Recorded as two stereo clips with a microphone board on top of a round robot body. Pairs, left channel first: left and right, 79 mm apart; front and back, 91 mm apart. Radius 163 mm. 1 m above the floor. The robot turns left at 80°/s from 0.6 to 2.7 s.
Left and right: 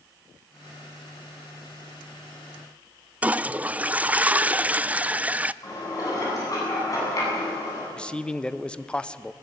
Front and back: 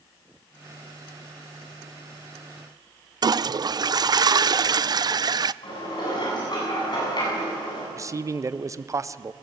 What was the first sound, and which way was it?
A toilet flushing, 155° right.